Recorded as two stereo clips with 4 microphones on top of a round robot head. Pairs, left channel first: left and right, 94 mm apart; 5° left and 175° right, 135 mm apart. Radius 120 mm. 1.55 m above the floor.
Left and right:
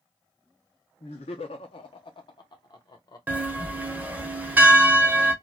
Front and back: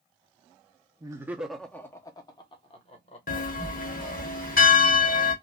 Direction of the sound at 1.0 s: 125° left.